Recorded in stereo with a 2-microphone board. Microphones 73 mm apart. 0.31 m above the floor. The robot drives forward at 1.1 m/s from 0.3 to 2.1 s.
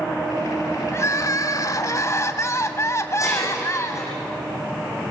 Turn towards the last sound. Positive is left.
turn(degrees=45)  # may be behind; listen again after turning